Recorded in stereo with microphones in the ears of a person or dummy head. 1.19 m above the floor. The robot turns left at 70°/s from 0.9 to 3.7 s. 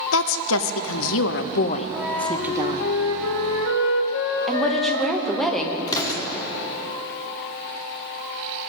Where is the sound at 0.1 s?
105° left, 0.5 m; by 2.9 s 35° right, 0.5 m.